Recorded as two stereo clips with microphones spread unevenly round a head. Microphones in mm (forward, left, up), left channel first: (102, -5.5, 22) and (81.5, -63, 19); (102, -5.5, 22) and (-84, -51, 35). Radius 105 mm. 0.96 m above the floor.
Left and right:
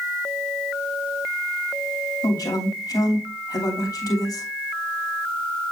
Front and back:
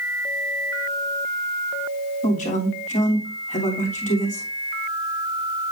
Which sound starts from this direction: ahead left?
A man speaking, at 2.2 s.